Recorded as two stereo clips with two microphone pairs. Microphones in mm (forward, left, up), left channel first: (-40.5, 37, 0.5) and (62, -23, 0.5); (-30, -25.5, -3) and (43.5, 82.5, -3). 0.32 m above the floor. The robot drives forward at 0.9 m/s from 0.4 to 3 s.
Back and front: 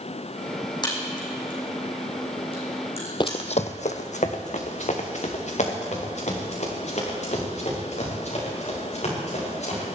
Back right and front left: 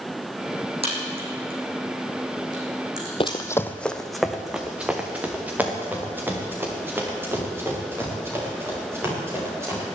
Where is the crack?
95° left, 5 m; by 3.4 s 115° left, 5.5 m.